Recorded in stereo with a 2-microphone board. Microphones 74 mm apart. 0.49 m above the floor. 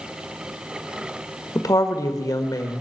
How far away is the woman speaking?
About 1.5 m.